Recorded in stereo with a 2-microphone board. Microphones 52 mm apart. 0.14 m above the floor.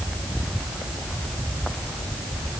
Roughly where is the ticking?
I don't hear ticking.